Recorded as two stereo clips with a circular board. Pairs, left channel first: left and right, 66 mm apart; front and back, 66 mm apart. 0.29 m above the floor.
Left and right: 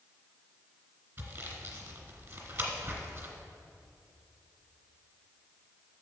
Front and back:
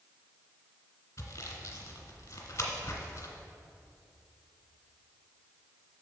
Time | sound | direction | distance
1.2 | sawing | 40° right | 1.4 m